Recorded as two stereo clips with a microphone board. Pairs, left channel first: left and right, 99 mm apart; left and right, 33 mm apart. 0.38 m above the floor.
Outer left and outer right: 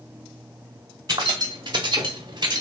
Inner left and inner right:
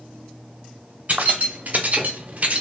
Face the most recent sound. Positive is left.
turn(degrees=-45)  # may be behind; listen again after turning